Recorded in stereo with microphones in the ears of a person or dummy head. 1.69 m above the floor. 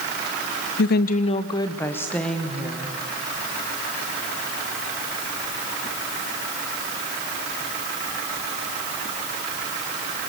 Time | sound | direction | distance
0.8 | a woman speaking | 75° left (ahead or behind) | 0.8 m